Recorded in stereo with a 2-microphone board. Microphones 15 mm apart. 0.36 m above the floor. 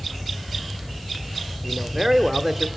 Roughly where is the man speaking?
Right.